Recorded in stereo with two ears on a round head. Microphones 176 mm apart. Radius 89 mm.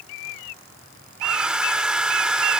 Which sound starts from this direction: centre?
A hair dryer, at 1.2 s.